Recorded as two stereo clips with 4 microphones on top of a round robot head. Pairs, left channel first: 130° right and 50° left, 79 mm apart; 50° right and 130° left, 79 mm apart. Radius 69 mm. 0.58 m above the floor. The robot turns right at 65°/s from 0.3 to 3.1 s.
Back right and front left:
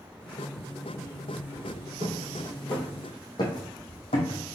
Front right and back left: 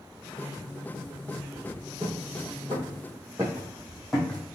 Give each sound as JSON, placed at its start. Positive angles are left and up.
{"t": 2.0, "sound": "footsteps", "azimuth_deg": 95, "distance_m": 2.0}